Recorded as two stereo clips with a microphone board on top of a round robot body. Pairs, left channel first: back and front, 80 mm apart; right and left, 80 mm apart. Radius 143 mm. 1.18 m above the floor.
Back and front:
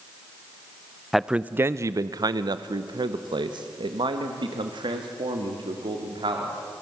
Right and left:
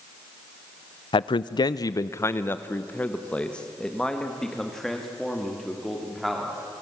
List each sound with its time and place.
1.1 s a man speaking: 90° right, 0.5 m; by 6.8 s straight ahead, 3 m